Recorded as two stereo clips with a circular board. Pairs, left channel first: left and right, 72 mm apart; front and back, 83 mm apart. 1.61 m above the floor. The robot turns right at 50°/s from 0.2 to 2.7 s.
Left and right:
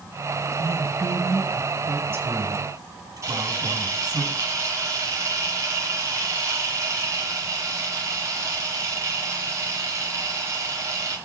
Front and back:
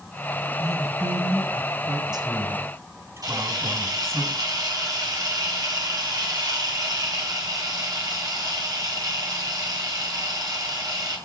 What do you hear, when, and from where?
0.6 s a woman speaking: 135° left, 9 m; by 4.2 s 120° right, 9 m
3.2 s a camera shutter: 140° right, 7 m